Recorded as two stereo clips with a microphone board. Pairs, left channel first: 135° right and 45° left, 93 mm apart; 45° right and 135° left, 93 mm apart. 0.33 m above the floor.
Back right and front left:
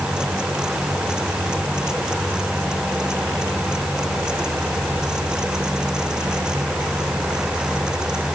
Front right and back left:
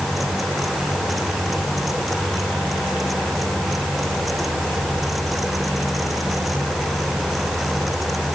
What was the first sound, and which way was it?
Only background noise.